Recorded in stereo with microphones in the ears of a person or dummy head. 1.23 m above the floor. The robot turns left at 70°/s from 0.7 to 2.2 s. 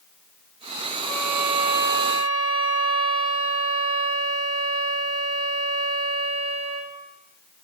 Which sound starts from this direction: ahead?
A violin, at 1.0 s.